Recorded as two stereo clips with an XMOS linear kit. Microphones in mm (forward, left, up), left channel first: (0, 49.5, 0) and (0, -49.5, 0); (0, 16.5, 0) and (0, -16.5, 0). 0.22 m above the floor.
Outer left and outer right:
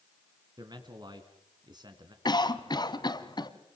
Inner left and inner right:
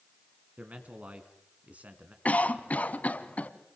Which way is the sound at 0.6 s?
45° right (ahead or behind).